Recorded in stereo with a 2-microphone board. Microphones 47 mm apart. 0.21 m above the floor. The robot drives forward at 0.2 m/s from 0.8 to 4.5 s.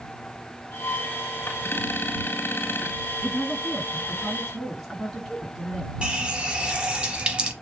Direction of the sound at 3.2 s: Centre (ahead or behind).